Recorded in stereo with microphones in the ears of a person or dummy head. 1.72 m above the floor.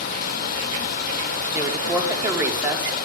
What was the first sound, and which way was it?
Running water, 50° left (ahead or behind).